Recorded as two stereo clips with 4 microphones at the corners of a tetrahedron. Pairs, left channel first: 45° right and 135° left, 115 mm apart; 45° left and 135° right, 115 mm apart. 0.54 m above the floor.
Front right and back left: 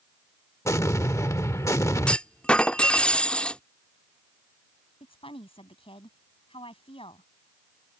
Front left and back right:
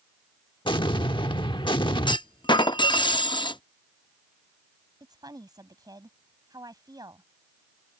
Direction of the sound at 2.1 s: 30° left.